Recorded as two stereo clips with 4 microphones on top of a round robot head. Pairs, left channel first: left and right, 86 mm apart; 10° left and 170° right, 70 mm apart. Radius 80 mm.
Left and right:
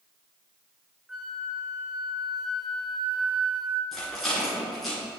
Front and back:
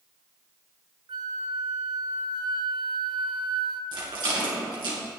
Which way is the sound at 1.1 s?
175° right.